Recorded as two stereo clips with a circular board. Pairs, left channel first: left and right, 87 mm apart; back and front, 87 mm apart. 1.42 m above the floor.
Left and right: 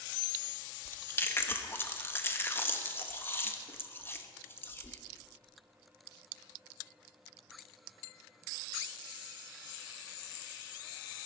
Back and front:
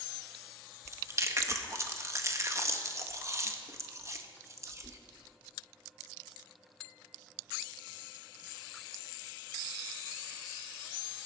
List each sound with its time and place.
0.8 s chewing: 40° left, 0.9 m